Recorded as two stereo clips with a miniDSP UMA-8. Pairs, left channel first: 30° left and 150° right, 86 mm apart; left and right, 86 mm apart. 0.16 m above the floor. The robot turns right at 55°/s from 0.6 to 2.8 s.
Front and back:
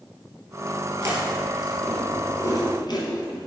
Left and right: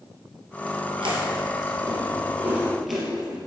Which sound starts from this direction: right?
Chewing, at 1.0 s.